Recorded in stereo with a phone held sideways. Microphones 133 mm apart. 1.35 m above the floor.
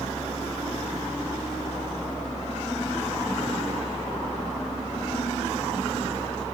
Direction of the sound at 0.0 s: 40° left (ahead or behind).